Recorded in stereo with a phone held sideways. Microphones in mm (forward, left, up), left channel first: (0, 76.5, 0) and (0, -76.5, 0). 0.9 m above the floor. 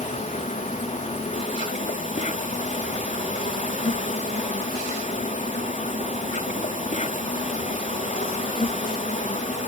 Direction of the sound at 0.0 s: 60° left (ahead or behind).